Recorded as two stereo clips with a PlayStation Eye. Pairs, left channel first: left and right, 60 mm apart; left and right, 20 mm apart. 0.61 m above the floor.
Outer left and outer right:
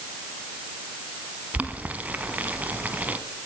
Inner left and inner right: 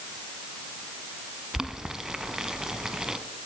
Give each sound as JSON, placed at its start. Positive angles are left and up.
{"t": 1.5, "sound": "boiling", "side_deg": -30, "distance_m": 0.9}